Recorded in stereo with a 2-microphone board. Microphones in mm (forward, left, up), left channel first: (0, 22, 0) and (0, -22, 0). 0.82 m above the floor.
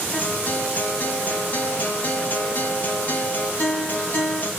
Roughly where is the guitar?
Left.